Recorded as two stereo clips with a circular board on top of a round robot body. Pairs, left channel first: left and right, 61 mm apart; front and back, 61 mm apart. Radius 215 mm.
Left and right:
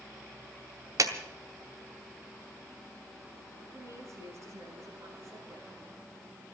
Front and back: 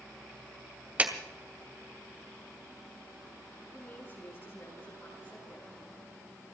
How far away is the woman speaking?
About 7 m.